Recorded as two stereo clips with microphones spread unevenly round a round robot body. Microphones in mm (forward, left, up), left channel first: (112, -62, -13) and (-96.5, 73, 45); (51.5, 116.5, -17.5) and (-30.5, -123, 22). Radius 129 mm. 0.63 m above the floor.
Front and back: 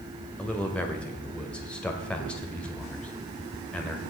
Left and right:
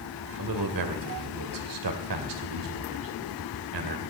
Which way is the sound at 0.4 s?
115° right.